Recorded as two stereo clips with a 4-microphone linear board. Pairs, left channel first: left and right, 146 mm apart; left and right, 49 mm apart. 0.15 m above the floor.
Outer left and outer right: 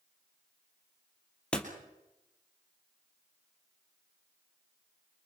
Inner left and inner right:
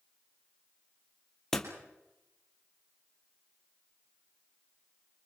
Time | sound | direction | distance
1.5 | a door slam | 5° left (ahead or behind) | 2.5 m